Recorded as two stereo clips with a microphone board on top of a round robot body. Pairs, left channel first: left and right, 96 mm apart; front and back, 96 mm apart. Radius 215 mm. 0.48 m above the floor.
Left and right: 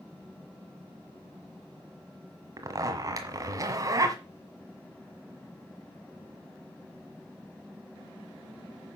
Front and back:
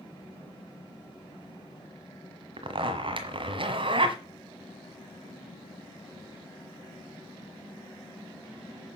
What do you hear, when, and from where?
2.6 s a zipper: 145° right, 1.5 m